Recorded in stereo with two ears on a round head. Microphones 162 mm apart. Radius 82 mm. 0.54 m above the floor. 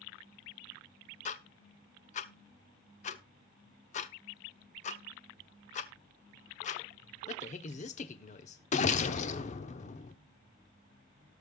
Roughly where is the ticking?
Left.